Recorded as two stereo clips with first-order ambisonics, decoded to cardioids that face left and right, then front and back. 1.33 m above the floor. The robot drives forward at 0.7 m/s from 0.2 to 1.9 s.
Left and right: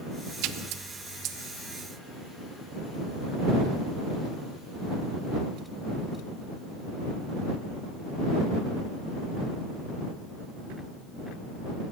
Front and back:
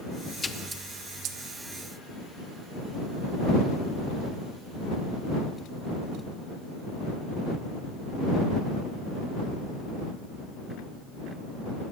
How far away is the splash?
About 0.5 m.